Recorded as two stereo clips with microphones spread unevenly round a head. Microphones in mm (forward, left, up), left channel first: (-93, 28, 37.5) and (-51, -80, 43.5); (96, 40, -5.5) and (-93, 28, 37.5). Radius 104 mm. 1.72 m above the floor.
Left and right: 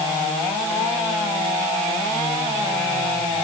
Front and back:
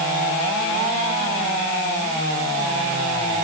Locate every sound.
Only background noise.